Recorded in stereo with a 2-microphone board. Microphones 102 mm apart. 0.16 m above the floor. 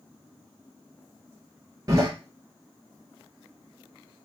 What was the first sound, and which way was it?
A door slam, 35° right (ahead or behind).